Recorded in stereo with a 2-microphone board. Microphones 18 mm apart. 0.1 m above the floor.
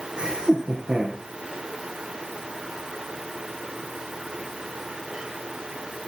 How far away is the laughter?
About 4.5 m.